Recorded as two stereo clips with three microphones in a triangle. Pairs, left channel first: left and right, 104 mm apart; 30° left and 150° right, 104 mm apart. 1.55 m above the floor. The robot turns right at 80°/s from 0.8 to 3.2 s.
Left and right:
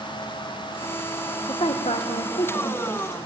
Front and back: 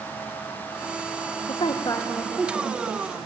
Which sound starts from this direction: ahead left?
A woman speaking, at 1.5 s.